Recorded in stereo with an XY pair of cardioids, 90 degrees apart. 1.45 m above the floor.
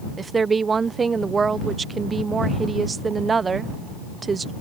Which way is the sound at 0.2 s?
35° right.